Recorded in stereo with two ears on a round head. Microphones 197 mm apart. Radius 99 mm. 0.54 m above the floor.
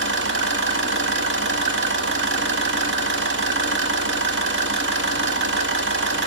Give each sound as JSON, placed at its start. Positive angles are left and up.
{"t": 0.0, "sound": "an engine running", "side_deg": -55, "distance_m": 0.7}